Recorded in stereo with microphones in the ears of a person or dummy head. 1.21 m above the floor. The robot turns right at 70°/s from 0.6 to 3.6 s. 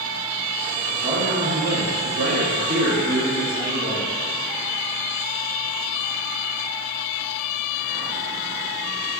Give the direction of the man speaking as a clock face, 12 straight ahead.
6 o'clock.